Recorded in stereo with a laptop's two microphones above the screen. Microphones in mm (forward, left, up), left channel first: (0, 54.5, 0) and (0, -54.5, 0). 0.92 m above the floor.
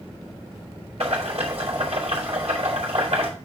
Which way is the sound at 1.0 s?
70° right (ahead or behind).